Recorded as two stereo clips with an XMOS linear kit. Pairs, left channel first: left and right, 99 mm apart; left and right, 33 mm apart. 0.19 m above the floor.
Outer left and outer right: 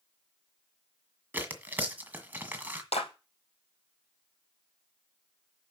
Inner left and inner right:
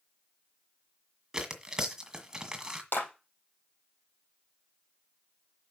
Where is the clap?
75° left (ahead or behind), 4 m.